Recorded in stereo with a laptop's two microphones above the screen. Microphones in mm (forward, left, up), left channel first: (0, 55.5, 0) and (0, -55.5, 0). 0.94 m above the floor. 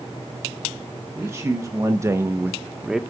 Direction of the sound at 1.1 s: 25° right (ahead or behind).